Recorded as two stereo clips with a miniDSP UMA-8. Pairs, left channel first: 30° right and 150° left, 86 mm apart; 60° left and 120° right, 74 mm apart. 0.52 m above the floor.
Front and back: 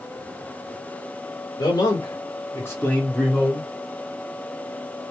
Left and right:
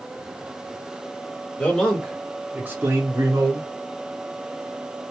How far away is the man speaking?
About 1.4 m.